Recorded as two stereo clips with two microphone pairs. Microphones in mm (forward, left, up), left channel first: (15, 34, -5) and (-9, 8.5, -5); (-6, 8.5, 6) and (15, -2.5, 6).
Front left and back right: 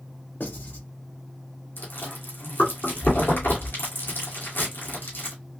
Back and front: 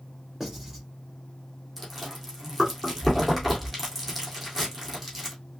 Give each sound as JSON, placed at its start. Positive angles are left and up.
{"t": 0.4, "sound": "writing", "azimuth_deg": 50, "distance_m": 2.0}
{"t": 1.8, "sound": "chewing", "azimuth_deg": 60, "distance_m": 2.0}